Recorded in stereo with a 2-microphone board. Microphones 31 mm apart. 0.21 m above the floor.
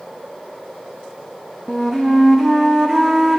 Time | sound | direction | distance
1.7 | a flute | 15° right (ahead or behind) | 2.5 m